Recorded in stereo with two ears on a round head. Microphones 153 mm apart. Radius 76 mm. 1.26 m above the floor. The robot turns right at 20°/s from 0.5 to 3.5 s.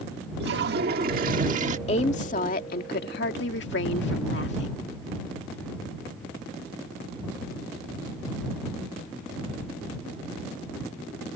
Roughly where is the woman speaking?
Ahead left.